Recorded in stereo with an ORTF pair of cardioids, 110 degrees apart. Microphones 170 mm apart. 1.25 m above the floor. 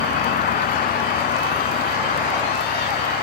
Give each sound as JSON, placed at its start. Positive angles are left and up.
{"t": 0.0, "sound": "a vehicle", "azimuth_deg": 55}